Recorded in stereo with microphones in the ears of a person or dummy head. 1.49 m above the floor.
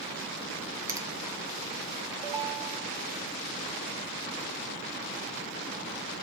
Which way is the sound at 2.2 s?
15° right (ahead or behind).